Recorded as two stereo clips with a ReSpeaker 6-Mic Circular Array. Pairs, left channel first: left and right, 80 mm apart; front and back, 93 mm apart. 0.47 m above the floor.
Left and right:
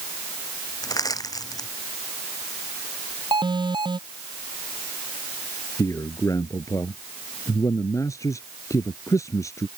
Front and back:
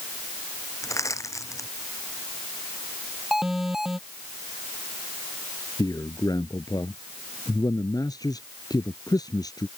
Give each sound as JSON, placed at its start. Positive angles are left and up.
{"t": 0.8, "sound": "crushing", "azimuth_deg": 55}
{"t": 3.3, "sound": "an alarm", "azimuth_deg": -95}
{"t": 5.8, "sound": "a man speaking", "azimuth_deg": 45}